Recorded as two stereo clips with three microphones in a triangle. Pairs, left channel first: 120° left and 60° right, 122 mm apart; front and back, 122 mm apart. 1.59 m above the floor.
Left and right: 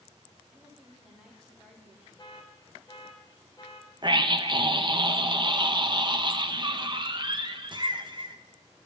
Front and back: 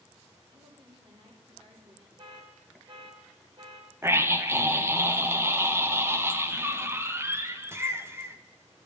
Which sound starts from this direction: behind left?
An alarm, at 2.2 s.